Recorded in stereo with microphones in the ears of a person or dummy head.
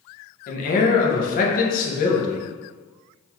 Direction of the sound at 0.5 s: 40° left (ahead or behind).